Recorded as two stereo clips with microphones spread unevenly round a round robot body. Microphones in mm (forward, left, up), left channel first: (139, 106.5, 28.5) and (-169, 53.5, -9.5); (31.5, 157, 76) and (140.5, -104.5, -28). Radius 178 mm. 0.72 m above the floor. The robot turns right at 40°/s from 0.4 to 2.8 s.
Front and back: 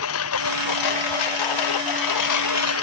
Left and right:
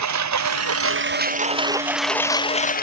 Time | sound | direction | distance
0.0 | a lawn mower | 45° right | ?